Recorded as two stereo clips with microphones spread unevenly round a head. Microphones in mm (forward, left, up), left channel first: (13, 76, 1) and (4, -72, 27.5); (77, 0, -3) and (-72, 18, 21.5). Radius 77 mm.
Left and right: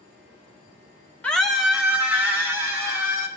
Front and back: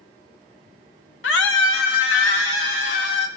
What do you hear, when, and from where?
1.2 s a scream: straight ahead, 1.0 m; by 3.3 s 20° right, 4 m